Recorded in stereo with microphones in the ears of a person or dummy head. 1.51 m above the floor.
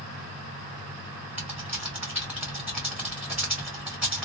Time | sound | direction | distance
1.4 | typing on a keyboard | 10° right (ahead or behind) | 0.6 m